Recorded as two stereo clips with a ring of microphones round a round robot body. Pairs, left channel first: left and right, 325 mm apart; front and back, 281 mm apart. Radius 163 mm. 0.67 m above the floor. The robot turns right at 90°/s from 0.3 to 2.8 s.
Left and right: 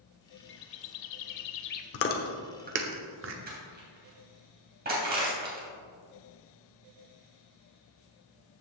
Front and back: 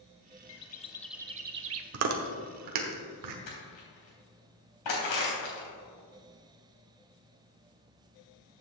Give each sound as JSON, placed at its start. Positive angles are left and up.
{"t": 0.5, "sound": "a bird", "azimuth_deg": 35, "distance_m": 0.6}
{"t": 1.9, "sound": "chewing", "azimuth_deg": 140, "distance_m": 1.0}
{"t": 3.5, "sound": "crushing", "azimuth_deg": -25, "distance_m": 3.0}